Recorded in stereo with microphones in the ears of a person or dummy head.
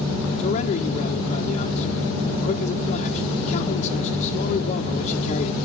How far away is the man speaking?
About 1.4 m.